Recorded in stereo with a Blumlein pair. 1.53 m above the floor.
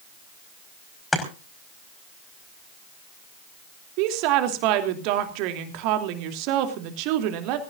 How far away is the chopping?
About 5 m.